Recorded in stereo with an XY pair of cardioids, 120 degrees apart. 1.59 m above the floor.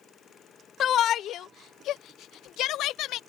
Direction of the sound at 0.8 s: 55° left.